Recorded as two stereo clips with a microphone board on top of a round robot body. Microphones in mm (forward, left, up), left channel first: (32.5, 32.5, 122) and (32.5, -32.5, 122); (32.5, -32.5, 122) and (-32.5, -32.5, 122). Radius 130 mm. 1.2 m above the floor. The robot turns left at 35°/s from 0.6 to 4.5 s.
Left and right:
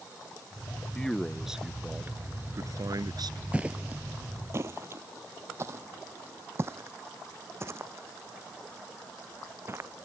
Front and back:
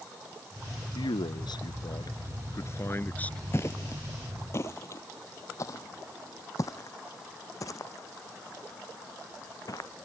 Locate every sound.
0.9 s a man speaking: 15° left; by 3.4 s 75° right
3.5 s footsteps: 25° right; by 9.9 s 35° right